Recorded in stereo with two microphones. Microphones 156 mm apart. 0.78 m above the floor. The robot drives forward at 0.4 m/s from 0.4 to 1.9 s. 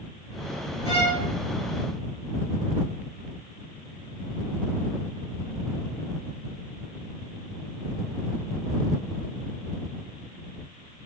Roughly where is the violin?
Left.